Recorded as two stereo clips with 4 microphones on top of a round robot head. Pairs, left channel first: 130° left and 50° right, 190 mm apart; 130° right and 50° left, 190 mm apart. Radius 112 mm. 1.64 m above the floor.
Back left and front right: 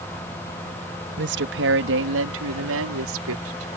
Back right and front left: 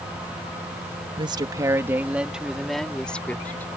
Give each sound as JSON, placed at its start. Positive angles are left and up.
{"t": 1.2, "sound": "a woman speaking", "azimuth_deg": -15}